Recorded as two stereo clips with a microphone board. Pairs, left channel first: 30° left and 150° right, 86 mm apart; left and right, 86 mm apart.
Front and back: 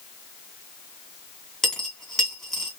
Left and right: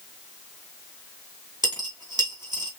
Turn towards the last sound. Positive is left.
turn(degrees=-55)